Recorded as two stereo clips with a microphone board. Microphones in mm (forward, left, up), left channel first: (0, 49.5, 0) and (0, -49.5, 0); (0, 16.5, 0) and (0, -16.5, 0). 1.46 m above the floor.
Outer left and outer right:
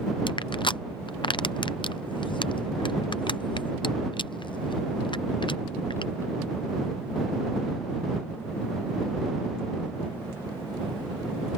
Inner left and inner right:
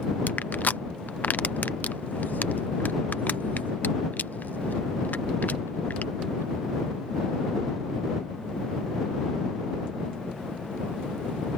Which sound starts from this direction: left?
Crushing, at 0.3 s.